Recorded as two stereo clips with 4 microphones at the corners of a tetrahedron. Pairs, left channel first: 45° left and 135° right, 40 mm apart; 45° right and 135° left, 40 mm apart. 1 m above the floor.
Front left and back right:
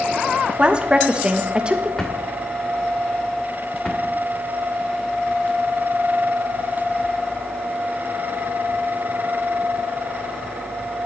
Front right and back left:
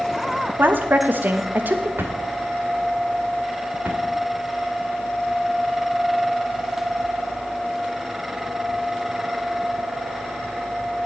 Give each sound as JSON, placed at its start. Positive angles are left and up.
{"t": 0.6, "sound": "a woman speaking", "azimuth_deg": 160, "distance_m": 1.1}
{"t": 2.0, "sound": "a drawer", "azimuth_deg": 115, "distance_m": 2.0}